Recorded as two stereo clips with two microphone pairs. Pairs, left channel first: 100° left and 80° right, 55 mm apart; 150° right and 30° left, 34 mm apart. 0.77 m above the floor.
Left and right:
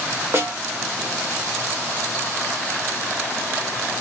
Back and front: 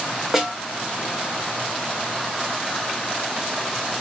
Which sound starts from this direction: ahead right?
A snare drum, at 0.3 s.